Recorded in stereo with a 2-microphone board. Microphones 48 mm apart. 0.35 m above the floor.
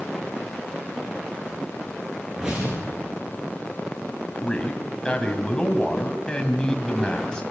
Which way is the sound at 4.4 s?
20° left (ahead or behind).